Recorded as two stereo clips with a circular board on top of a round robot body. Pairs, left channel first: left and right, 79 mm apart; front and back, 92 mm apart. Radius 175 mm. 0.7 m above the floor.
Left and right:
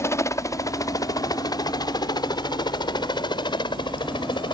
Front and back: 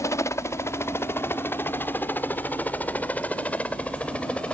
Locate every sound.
0.0 s a helicopter: 50° left; by 4.5 s 75° left